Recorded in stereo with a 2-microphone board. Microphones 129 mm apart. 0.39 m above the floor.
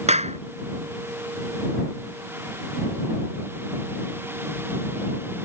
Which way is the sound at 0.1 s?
60° right (ahead or behind).